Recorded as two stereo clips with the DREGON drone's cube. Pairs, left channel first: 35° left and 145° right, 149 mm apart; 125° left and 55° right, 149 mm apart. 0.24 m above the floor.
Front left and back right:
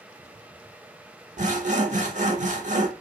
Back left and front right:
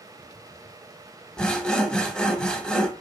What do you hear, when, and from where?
1.4 s sawing: 150° right, 0.6 m